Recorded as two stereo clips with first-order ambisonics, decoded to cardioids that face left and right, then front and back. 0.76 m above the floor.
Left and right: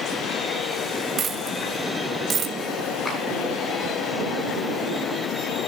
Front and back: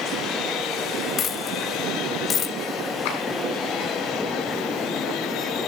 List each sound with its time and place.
1.2 s a dropped coin: 40° right, 0.6 m
3.0 s a clap: 5° left, 7 m